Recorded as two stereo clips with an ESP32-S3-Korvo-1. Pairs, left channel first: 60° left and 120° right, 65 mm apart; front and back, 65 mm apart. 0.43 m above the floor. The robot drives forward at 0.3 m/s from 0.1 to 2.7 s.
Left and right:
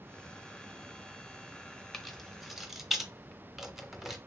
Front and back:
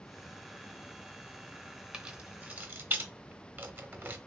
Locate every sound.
1.9 s keys jangling: 130° left, 0.6 m; by 4.2 s 155° left, 0.7 m